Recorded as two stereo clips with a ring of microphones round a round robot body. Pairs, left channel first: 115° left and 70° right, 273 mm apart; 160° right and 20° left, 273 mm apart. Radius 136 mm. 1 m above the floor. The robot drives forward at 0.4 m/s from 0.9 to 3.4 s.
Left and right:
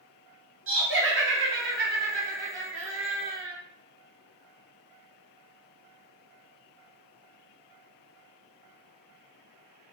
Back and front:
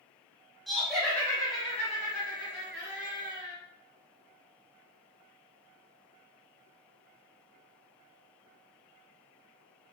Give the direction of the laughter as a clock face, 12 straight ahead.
2 o'clock.